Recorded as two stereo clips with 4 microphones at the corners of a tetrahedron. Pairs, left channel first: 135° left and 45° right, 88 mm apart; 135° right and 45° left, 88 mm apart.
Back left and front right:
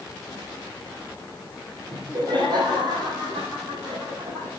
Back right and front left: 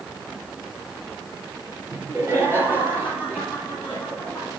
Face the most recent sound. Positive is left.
turn(degrees=-35)